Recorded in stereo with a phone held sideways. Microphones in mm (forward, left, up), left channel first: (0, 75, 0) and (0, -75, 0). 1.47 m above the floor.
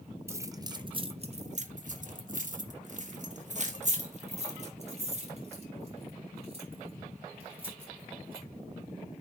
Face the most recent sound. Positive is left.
turn(degrees=-40)  # may be behind; listen again after turning